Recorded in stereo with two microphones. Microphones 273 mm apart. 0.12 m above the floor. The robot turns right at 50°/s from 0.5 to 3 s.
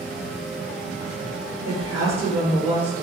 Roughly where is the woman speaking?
Ahead right.